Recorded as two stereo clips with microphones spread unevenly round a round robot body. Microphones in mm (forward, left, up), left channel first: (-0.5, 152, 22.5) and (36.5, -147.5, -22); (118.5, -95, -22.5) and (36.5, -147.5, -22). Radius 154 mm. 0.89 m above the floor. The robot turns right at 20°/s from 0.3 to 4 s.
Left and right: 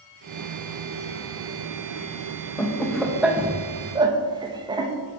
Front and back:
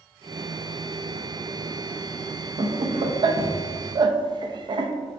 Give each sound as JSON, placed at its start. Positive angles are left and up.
{"t": 2.6, "sound": "laughter", "azimuth_deg": -175, "distance_m": 0.6}